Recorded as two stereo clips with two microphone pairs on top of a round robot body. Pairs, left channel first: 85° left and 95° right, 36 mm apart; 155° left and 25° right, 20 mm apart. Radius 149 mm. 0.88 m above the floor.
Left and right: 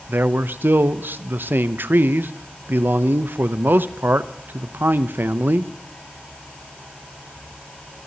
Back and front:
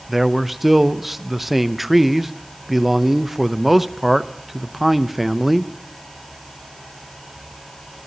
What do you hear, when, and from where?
0.1 s a man speaking: 110° right, 0.7 m